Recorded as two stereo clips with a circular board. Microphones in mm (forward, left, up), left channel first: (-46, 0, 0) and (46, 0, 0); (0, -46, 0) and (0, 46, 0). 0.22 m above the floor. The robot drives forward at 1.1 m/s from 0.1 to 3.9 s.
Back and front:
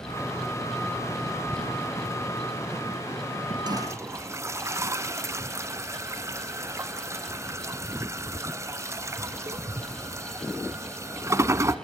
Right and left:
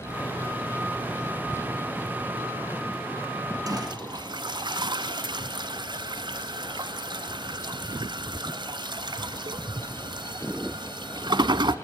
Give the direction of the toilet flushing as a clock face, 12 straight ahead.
11 o'clock.